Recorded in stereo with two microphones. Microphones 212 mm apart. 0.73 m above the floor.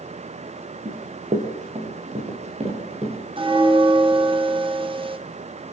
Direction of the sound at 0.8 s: 40° right (ahead or behind).